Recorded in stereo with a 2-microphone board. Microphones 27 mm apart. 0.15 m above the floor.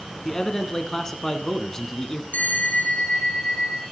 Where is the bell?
75° left (ahead or behind), 1.5 m.